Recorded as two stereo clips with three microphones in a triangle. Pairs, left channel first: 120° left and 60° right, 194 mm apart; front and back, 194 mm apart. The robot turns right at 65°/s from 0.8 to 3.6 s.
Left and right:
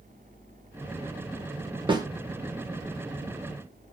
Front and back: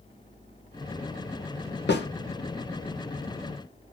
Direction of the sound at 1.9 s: Straight ahead.